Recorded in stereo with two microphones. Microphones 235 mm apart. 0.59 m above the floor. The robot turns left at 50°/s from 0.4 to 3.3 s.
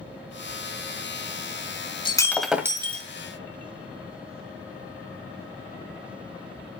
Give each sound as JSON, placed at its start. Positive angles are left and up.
{"t": 2.0, "sound": "breaking glass", "azimuth_deg": 20, "distance_m": 1.8}